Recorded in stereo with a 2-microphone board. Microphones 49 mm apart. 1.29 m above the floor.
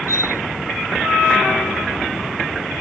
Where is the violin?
80° left.